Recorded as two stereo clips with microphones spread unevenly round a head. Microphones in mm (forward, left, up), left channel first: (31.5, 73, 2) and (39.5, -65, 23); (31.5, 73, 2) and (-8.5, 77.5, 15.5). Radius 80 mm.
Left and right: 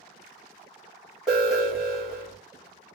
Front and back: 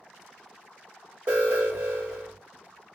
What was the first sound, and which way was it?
An alarm, 170° right.